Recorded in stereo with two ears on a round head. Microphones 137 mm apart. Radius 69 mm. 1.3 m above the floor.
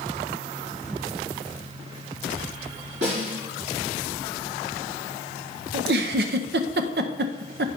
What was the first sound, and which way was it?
A snare drum, 85° right.